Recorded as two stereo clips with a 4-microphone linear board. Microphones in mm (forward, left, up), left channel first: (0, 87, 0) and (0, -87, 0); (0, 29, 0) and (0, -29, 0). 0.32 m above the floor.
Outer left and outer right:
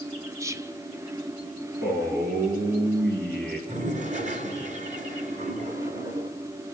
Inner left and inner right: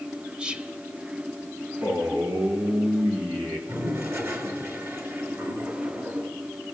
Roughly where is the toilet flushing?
Right.